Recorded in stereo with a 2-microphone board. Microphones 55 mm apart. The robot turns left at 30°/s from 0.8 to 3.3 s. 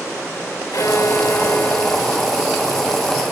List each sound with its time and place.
0.7 s a violin: 65° left; by 3.2 s 10° right